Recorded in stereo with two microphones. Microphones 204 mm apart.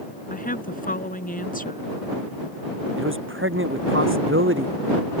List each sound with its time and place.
0.3 s a woman speaking: 45° left (ahead or behind)
3.0 s a man speaking: 75° right (ahead or behind)